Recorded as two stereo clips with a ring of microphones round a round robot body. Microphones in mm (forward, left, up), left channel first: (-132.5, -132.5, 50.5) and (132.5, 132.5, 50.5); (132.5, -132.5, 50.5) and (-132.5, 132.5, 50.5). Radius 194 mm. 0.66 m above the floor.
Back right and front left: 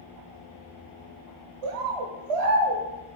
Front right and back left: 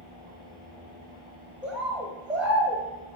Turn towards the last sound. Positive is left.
turn(degrees=50)